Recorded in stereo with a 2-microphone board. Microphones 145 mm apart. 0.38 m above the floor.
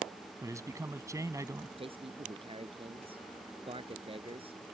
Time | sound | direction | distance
0.4 | a man speaking | 20° right (ahead or behind) | ?
1.8 | a man speaking | 40° right (ahead or behind) | ?